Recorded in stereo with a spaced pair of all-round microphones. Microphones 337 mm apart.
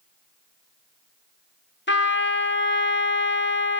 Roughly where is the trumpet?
Left.